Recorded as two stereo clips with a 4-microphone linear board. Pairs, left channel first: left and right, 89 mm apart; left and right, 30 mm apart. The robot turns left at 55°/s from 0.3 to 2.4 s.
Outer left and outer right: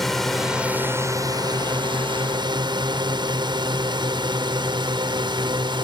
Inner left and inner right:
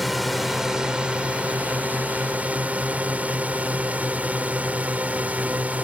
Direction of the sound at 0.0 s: 5° left (ahead or behind).